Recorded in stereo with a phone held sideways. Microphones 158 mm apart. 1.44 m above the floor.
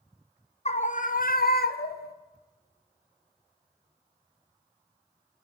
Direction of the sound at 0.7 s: 45° left (ahead or behind).